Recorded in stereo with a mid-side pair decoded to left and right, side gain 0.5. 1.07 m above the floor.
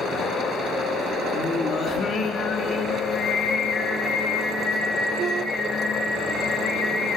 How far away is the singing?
About 1.5 m.